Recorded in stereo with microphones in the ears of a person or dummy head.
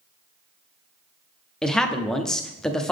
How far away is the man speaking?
About 0.6 m.